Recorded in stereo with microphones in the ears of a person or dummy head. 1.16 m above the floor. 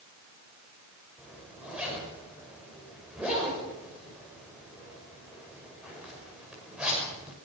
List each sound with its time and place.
1.2 s a zipper: 5° right (ahead or behind), 6.5 m